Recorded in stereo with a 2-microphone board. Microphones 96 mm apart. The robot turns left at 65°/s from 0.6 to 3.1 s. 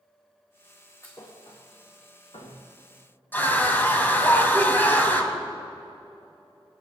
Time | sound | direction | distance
1.0 | a thud | 30° left (ahead or behind) | 3 m
3.3 | a scream | 20° left (ahead or behind) | 1.8 m